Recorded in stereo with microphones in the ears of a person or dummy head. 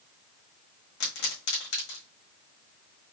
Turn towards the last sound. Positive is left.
turn(degrees=60)  # may be behind; listen again after turning